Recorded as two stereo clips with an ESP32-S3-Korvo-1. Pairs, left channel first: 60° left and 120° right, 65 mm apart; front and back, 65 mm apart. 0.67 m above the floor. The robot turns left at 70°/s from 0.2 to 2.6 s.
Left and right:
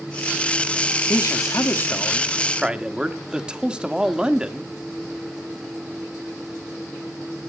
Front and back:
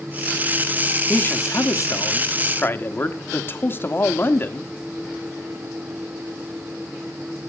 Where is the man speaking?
60° left, 1.3 m; by 4.7 s 45° right, 1.3 m.